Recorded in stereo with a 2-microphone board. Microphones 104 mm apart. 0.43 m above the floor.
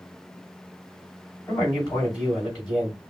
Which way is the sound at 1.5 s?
40° left (ahead or behind).